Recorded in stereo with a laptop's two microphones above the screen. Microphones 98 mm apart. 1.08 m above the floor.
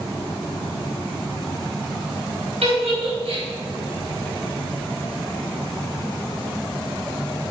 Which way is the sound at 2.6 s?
80° right.